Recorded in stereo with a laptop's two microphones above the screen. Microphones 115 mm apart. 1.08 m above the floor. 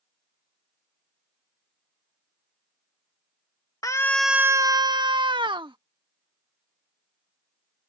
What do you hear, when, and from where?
3.8 s a scream: 30° left (ahead or behind); by 5.8 s 45° right (ahead or behind)